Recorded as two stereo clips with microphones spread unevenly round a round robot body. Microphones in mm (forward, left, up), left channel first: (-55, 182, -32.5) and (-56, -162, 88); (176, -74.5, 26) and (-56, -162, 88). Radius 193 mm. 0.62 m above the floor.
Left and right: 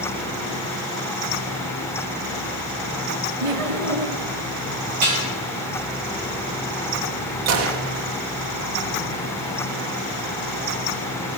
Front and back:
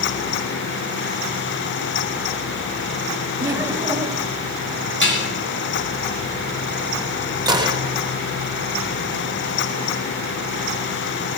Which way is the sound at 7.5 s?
80° right.